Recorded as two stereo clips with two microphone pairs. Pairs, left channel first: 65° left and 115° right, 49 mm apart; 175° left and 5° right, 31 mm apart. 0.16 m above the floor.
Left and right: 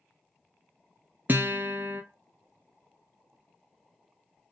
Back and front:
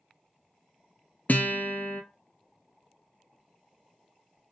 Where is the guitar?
160° right, 0.5 m.